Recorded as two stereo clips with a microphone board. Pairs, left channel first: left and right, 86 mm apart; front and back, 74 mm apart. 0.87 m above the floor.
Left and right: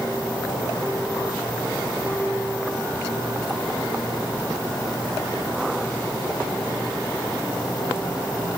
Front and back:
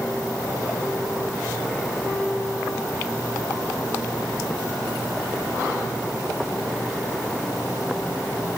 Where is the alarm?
I don't hear an alarm.